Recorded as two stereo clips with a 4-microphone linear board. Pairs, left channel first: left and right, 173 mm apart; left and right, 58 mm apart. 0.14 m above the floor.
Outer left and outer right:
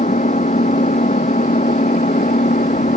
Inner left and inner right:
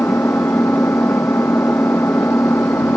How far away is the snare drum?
No snare drum in this recording.